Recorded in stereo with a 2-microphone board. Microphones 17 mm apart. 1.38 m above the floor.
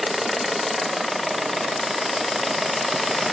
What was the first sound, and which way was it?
Only background noise.